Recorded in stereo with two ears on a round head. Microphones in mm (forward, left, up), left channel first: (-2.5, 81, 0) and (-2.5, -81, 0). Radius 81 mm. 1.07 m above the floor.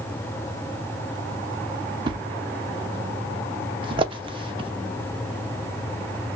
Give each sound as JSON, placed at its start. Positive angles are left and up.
{"t": 2.1, "sound": "a thud", "side_deg": -30, "distance_m": 0.7}